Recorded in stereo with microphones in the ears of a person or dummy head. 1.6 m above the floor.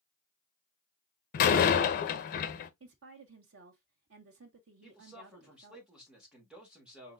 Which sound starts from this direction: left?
A door slam, at 1.3 s.